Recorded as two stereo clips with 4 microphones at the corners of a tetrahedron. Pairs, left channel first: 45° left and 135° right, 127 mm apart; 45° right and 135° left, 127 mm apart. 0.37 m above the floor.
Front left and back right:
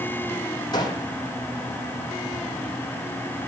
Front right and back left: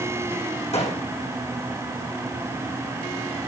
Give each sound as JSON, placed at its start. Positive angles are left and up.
{"t": 0.7, "sound": "a gunshot", "azimuth_deg": -10, "distance_m": 4.0}